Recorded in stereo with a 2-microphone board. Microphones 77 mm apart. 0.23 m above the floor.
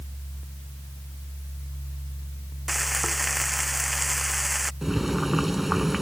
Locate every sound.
2.7 s frying: centre (ahead or behind)
4.8 s boiling: centre (ahead or behind)